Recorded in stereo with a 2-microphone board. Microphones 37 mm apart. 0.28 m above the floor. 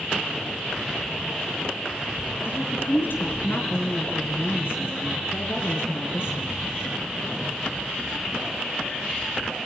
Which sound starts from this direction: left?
A woman speaking, at 2.5 s.